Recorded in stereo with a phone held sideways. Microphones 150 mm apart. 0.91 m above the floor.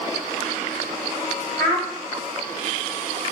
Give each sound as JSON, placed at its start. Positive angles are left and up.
{"t": 1.6, "sound": "a child speaking", "side_deg": 25, "distance_m": 1.6}